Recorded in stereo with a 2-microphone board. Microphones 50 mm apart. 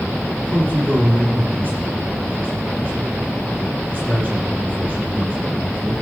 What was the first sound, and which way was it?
A man speaking, 35° right (ahead or behind).